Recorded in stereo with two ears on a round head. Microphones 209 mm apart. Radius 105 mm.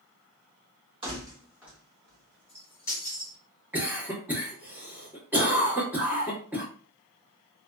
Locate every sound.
1.0 s keys jangling: 20° right (ahead or behind), 1.3 m; by 3.4 s 15° left (ahead or behind), 2.5 m
3.7 s a cough: 10° right (ahead or behind), 1.3 m